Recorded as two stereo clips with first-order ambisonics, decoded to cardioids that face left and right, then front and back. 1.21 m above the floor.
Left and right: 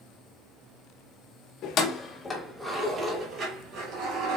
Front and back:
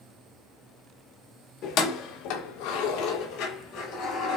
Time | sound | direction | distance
1.6 | keys jangling | 45° left | 0.8 m